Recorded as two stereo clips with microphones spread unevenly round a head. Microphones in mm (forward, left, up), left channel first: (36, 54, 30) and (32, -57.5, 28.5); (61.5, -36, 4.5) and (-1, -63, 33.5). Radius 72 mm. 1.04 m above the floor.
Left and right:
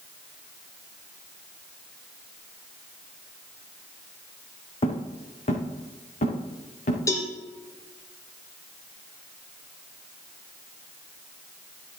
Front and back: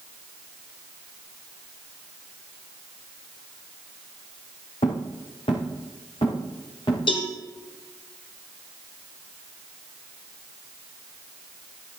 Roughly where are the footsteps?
Ahead left.